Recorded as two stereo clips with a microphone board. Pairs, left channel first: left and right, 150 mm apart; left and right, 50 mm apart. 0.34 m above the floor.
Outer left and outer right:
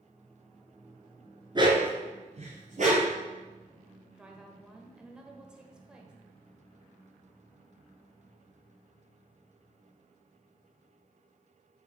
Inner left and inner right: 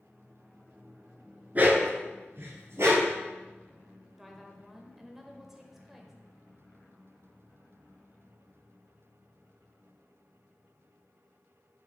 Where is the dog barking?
30° right (ahead or behind), 1.7 m; by 3.2 s 60° right (ahead or behind), 3 m.